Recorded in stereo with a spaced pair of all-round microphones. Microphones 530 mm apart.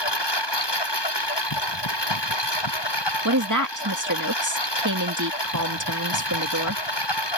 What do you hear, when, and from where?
0.0 s a lawn mower: 50° left (ahead or behind)
3.2 s a woman speaking: 35° right (ahead or behind)